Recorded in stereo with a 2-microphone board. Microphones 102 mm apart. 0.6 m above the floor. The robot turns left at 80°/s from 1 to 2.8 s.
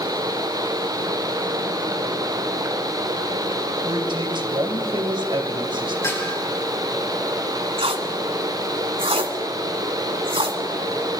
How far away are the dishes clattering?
About 6.5 m.